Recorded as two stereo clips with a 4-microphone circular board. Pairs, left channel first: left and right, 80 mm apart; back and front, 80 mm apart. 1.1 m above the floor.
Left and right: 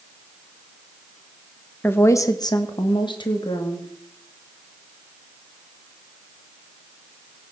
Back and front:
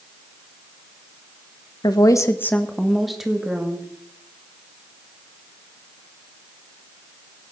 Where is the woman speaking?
155° left, 1.2 m; by 3.9 s 75° left, 2.5 m.